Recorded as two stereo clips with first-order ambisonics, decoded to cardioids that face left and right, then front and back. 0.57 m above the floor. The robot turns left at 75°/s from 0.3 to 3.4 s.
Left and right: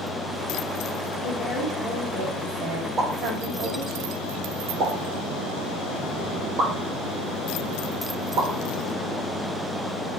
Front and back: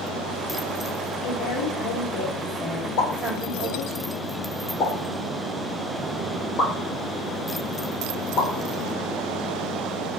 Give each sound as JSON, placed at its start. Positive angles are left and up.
{"t": 1.2, "sound": "a woman speaking", "azimuth_deg": 45, "distance_m": 2.5}
{"t": 3.0, "sound": "a pop", "azimuth_deg": -20, "distance_m": 3.0}